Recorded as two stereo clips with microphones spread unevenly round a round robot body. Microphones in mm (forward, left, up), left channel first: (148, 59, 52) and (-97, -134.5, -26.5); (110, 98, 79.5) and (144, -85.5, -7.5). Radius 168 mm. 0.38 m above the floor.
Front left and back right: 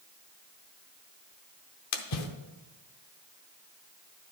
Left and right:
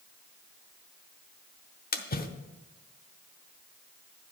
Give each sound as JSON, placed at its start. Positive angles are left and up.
{"t": 1.9, "sound": "a splash", "azimuth_deg": 50, "distance_m": 0.9}